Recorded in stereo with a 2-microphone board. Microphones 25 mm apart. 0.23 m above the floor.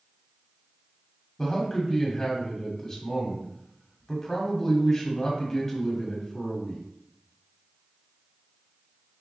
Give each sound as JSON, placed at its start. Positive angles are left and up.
{"t": 1.4, "sound": "a man speaking", "side_deg": 15, "distance_m": 1.2}